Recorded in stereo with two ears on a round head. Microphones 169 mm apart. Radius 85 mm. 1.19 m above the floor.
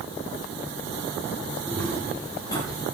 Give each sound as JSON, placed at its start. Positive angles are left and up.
{"t": 1.7, "sound": "footsteps", "side_deg": 5, "distance_m": 5.0}